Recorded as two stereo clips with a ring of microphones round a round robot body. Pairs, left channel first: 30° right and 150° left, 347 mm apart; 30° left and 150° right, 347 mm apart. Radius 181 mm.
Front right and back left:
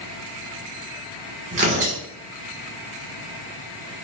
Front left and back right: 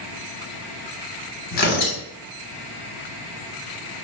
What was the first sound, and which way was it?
Tearing paper, 80° left.